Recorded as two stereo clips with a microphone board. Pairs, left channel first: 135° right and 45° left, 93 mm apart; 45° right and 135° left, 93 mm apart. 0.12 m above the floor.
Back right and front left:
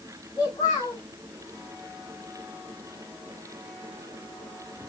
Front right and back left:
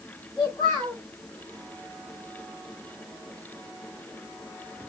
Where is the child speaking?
90° right, 7.5 m.